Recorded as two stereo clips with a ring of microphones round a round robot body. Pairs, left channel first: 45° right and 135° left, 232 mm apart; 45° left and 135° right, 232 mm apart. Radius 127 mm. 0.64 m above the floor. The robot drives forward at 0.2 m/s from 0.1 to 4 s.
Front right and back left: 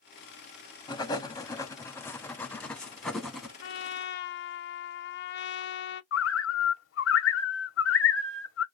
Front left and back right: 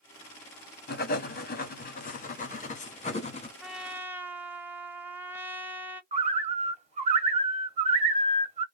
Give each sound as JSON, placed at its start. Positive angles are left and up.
{"t": 0.9, "sound": "writing", "azimuth_deg": 20, "distance_m": 1.2}
{"t": 3.6, "sound": "a trumpet", "azimuth_deg": -45, "distance_m": 0.5}
{"t": 6.1, "sound": "a bird", "azimuth_deg": -75, "distance_m": 1.1}